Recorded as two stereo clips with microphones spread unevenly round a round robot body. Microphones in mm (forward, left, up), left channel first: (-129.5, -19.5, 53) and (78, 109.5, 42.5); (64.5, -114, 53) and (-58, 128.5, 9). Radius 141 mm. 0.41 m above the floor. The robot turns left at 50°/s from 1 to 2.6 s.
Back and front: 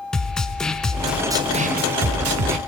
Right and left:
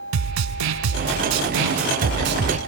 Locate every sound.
0.1 s a snare drum: 125° left, 0.7 m; by 2.6 s 45° left, 0.7 m